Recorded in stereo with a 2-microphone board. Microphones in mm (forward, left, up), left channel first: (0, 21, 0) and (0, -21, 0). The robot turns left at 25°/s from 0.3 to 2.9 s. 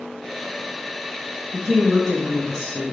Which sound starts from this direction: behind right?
A woman speaking, at 1.5 s.